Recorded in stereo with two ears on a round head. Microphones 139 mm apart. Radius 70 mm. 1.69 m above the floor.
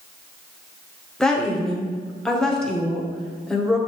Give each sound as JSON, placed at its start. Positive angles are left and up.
{"t": 1.2, "sound": "a woman speaking", "side_deg": 5, "distance_m": 1.1}